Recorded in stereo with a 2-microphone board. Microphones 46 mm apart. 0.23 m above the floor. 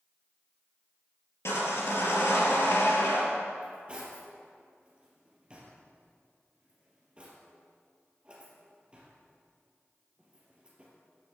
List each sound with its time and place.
1.4 s sawing: 75° left (ahead or behind), 3.5 m
3.6 s cutlery clinking: 25° right (ahead or behind), 3 m